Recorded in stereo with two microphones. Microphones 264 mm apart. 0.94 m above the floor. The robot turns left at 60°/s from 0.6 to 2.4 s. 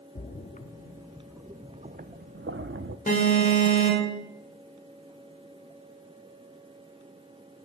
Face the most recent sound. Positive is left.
turn(degrees=30)  # may be behind; listen again after turning